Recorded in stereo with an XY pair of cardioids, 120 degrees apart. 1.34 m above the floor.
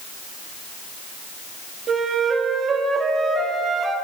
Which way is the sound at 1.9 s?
40° right.